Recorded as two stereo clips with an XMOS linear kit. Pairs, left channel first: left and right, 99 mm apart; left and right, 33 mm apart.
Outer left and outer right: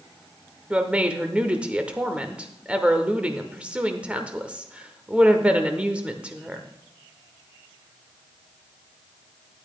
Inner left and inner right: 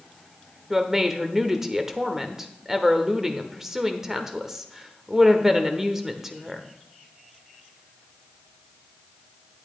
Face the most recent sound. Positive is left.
turn(degrees=-10)  # may be behind; listen again after turning